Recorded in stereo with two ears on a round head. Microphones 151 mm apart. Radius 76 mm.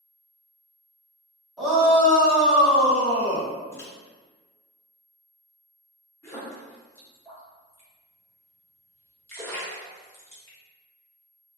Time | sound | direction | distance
1.6 | a shout | 5° right (ahead or behind) | 1.5 m
3.7 | a microwave | 15° left (ahead or behind) | 0.5 m
6.2 | a splash | 15° left (ahead or behind) | 1.2 m